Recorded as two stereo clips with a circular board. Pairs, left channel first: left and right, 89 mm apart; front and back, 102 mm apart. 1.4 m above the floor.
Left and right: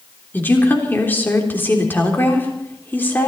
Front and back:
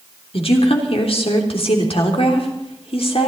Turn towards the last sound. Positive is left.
turn(degrees=20)